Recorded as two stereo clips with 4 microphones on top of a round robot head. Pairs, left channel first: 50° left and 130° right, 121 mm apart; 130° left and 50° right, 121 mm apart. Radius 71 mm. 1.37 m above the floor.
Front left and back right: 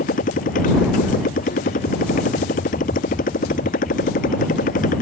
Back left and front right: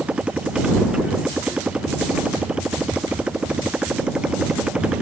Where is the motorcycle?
30° left.